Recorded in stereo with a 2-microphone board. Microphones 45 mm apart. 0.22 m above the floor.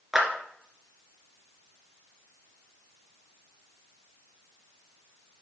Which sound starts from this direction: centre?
A clap, at 0.1 s.